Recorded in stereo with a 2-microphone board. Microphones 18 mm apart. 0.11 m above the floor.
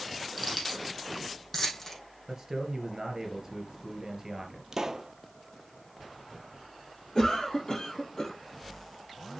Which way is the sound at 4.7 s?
35° right (ahead or behind).